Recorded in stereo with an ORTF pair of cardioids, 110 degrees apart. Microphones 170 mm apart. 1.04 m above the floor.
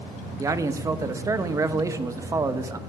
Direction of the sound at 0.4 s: 20° right.